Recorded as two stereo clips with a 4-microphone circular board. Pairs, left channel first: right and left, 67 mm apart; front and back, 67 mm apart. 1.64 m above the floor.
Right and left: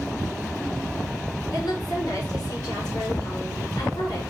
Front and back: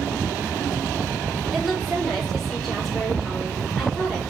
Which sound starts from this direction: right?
A woman speaking, at 1.5 s.